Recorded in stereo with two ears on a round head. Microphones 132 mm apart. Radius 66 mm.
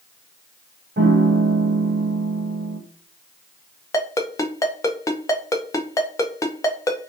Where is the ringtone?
20° left (ahead or behind), 0.6 m.